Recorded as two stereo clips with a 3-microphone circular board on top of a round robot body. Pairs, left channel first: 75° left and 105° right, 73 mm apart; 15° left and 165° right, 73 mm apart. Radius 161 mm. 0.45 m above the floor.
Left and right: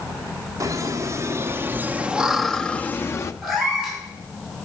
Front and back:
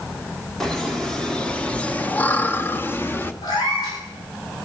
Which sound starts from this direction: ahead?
A cat meowing, at 3.4 s.